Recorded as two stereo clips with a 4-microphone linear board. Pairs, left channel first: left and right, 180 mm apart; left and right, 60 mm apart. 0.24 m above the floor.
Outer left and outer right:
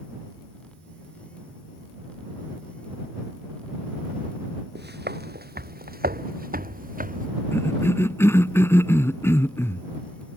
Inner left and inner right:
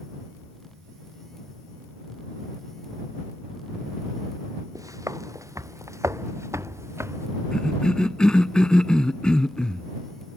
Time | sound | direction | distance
4.8 | footsteps | 70° right (ahead or behind) | ?
7.5 | a cough | 15° left (ahead or behind) | ?